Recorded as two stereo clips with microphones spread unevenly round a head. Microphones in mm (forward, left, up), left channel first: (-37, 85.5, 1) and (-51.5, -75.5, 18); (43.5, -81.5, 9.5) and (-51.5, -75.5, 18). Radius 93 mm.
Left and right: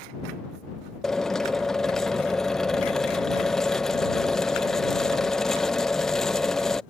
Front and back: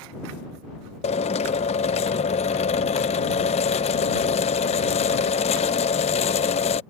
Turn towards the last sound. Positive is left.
turn(degrees=-5)